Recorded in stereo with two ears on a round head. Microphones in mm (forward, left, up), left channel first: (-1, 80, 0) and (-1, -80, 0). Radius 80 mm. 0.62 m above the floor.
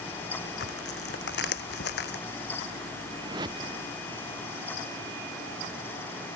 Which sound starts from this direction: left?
Tearing paper, at 0.6 s.